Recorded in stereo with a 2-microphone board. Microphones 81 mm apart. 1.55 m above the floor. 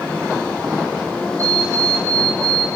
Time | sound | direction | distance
1.4 | an alarm clock | 35° right (ahead or behind) | 5.5 m